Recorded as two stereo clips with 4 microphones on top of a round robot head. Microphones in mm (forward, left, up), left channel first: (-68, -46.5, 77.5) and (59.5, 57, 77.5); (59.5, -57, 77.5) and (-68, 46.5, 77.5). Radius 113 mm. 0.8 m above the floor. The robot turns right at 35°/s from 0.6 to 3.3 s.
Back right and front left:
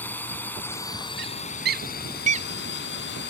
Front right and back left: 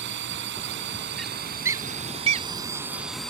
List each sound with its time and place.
0.0 s a drone: 140° left; by 3.3 s 125° right
1.2 s a bird: 50° left; by 2.5 s 95° left